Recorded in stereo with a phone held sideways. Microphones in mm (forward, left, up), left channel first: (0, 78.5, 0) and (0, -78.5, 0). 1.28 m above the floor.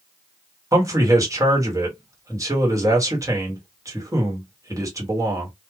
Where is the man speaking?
20° right (ahead or behind), 1.3 m.